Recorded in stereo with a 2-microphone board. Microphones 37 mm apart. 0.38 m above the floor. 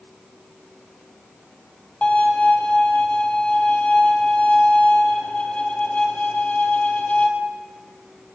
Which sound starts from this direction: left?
A violin, at 2.0 s.